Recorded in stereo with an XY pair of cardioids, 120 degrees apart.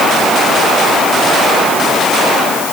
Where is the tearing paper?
I don't hear tearing paper.